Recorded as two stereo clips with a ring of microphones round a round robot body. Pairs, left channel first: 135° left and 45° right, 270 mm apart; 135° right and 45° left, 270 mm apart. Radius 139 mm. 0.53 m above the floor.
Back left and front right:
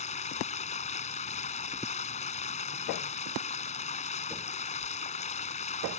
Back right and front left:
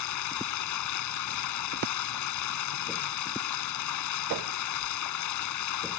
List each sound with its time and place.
0.0 s running water: 160° right